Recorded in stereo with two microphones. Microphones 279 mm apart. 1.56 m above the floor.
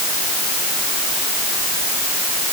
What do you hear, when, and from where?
Only background noise.